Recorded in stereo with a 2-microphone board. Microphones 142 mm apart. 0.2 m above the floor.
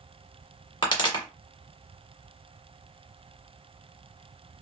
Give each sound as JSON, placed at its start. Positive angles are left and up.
{"t": 0.8, "sound": "a pop", "side_deg": 35, "distance_m": 1.1}